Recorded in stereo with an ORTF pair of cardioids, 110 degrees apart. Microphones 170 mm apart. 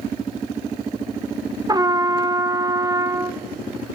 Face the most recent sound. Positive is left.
turn(degrees=-25)